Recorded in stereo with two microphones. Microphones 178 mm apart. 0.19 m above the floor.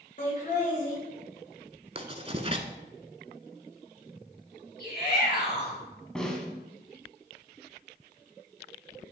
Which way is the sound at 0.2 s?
45° left (ahead or behind).